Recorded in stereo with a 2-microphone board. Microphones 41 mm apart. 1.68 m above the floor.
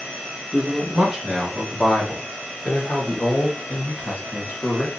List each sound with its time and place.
0.5 s a man speaking: 25° right (ahead or behind), 1.3 m; by 4.9 s 55° left (ahead or behind), 2 m